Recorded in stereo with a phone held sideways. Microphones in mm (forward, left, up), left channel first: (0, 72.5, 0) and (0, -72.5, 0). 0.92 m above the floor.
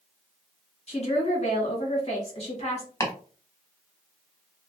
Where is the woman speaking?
45° left (ahead or behind), 1.3 m.